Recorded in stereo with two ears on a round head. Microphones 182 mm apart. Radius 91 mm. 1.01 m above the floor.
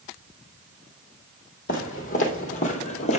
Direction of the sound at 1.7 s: 45° left (ahead or behind).